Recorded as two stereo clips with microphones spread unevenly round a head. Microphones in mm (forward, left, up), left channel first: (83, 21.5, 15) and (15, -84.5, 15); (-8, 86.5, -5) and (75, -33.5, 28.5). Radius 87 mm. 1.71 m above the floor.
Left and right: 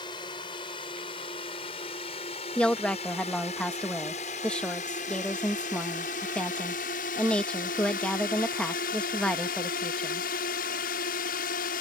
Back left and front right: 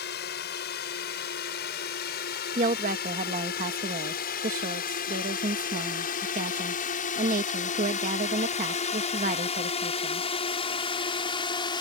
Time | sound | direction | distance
0.0 | a drone | 125° left | ?
2.5 | a woman speaking | 25° right | ?